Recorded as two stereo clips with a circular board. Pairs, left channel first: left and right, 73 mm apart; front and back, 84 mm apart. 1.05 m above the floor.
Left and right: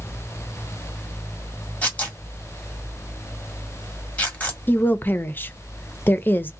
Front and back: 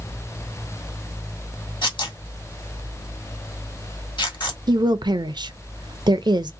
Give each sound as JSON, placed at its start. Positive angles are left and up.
{"t": 1.8, "sound": "tearing paper", "azimuth_deg": 20, "distance_m": 1.4}
{"t": 4.7, "sound": "a woman speaking", "azimuth_deg": 150, "distance_m": 0.5}